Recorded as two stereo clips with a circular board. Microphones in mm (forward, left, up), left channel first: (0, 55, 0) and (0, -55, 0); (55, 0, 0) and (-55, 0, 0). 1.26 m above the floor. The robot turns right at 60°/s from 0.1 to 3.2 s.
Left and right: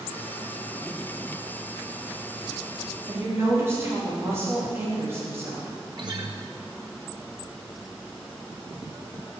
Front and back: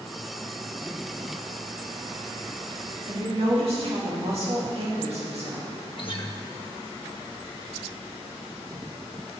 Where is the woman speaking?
165° right, 3 m; by 5.7 s 155° right, 3 m.